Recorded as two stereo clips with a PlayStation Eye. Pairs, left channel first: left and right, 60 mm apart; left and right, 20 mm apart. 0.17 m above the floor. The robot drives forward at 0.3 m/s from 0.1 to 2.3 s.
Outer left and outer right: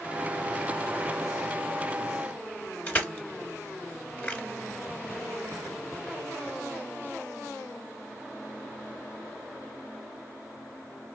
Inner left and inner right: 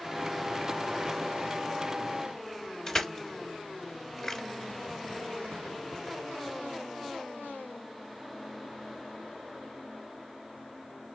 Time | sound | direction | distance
2.9 | crushing | 25° left (ahead or behind) | 1.6 m